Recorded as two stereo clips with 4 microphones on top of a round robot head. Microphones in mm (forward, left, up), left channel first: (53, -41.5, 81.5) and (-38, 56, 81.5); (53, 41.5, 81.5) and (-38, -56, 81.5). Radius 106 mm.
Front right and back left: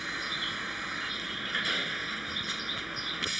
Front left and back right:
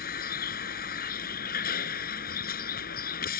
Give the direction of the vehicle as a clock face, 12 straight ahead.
11 o'clock.